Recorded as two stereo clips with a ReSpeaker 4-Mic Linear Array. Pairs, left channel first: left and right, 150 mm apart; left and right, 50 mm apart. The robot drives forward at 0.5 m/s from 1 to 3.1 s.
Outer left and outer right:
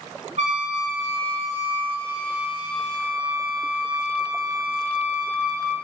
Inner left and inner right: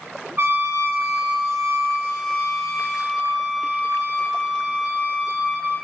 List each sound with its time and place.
0.4 s a trumpet: 50° right (ahead or behind), 2.5 m; by 5.8 s 35° right (ahead or behind), 3 m